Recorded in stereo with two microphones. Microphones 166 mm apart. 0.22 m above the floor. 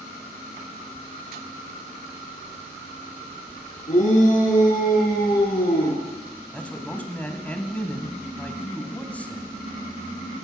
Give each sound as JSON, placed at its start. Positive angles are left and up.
{"t": 3.9, "sound": "a shout", "side_deg": 50, "distance_m": 3.0}
{"t": 6.5, "sound": "a man speaking", "side_deg": 10, "distance_m": 1.1}